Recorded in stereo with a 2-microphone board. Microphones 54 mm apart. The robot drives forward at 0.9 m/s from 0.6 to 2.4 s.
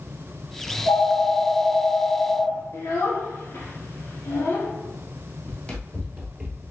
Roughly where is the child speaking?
Left.